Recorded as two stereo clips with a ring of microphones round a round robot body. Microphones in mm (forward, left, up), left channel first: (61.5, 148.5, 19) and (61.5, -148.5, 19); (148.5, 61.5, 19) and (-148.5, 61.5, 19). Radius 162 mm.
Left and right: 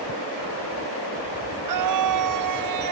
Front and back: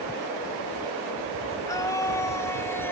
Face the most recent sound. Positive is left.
turn(degrees=-85)